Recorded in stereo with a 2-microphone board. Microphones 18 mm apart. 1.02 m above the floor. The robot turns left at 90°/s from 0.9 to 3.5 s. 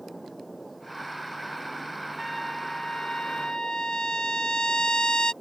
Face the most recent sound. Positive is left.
turn(degrees=65)